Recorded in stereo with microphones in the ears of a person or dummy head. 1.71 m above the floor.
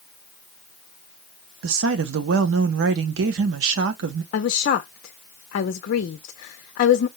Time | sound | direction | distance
1.6 | a woman speaking | 70° right (ahead or behind) | 0.6 m
4.3 | a woman speaking | 50° left (ahead or behind) | 0.5 m